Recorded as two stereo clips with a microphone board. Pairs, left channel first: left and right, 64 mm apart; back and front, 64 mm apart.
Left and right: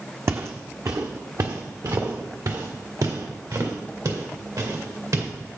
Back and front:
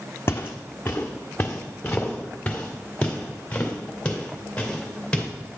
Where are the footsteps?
130° right, 0.8 m; by 5.3 s 105° right, 3.5 m.